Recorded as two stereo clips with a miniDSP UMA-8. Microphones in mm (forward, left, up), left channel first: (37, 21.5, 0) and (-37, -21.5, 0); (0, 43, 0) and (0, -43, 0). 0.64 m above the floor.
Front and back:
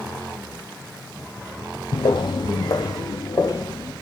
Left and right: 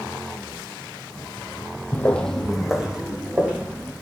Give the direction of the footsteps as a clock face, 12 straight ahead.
11 o'clock.